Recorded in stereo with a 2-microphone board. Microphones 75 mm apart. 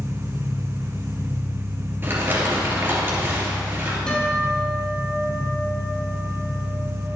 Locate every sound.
0.0 s an engine running: 55° right (ahead or behind), 1.7 m
2.0 s crumpling: 30° right (ahead or behind), 3 m
4.1 s a guitar: 15° left (ahead or behind), 3.5 m